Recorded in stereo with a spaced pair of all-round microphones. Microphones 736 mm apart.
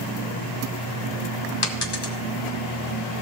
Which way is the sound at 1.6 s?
35° left (ahead or behind).